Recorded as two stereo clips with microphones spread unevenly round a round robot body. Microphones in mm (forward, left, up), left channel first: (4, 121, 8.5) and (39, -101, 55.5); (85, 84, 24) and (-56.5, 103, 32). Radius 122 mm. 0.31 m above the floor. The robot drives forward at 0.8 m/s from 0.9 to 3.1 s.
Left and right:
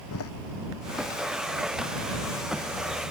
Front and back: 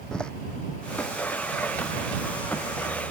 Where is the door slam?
75° left.